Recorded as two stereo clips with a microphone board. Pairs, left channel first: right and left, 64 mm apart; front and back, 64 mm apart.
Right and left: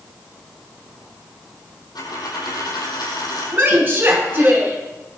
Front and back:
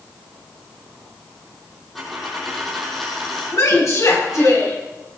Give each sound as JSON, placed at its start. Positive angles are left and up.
{"t": 1.9, "sound": "a dropped coin", "azimuth_deg": -90, "distance_m": 4.5}
{"t": 3.5, "sound": "a woman speaking", "azimuth_deg": 30, "distance_m": 4.5}